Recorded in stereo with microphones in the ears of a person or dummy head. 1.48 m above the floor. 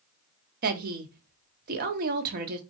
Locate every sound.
0.6 s a woman speaking: 45° right (ahead or behind), 0.9 m